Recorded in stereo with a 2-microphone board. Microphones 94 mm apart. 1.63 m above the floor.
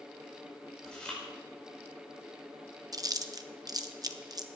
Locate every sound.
0.8 s chewing: 10° left (ahead or behind), 5.5 m
2.9 s chewing: 40° right (ahead or behind), 0.9 m